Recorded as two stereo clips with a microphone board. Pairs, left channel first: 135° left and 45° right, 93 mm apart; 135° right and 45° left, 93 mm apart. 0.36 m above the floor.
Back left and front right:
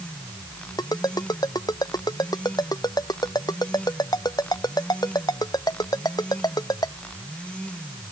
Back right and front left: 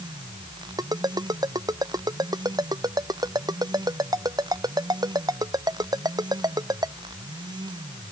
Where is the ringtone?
90° left.